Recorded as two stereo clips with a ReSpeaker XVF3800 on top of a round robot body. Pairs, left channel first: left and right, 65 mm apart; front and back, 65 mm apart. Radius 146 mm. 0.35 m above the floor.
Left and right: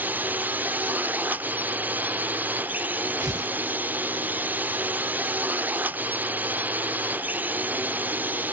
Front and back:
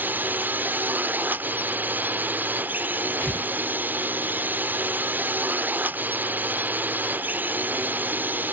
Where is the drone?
135° right.